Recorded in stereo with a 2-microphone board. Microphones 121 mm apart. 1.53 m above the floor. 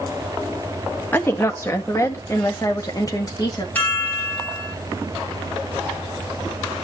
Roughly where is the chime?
Centre.